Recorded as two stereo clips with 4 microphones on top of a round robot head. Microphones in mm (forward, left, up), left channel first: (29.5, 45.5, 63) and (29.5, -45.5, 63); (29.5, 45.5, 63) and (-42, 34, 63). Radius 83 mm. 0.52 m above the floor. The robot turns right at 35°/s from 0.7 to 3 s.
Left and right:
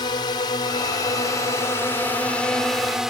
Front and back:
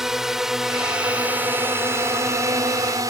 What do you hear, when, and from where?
0.0 s a drone: 105° left; by 3.1 s 175° right